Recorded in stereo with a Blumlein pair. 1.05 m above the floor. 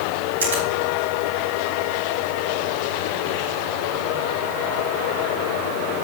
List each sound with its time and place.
0.4 s a finger snap: 65° right, 6 m